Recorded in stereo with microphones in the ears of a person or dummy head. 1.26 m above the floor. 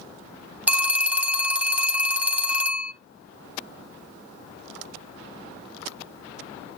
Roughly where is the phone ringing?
Centre.